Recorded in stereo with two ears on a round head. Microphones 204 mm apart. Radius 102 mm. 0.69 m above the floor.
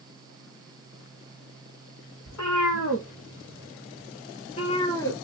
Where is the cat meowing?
70° left (ahead or behind), 1.9 m; by 5.2 s 10° left (ahead or behind), 1.1 m.